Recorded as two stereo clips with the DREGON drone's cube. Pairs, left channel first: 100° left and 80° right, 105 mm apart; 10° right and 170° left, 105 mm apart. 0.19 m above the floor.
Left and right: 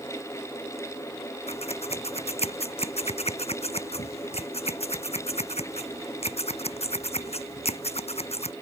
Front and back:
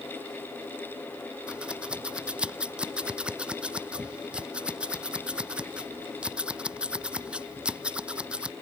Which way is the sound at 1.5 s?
90° left.